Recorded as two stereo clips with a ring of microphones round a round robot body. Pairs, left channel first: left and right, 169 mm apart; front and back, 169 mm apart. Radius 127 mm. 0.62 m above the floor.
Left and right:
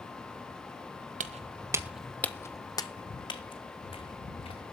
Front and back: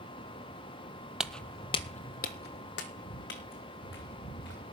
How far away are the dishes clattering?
No dishes clattering in this recording.